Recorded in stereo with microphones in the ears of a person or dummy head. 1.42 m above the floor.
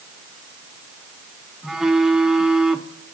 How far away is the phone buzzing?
About 0.7 m.